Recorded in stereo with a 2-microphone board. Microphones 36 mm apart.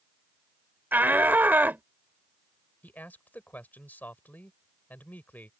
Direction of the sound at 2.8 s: 60° left (ahead or behind).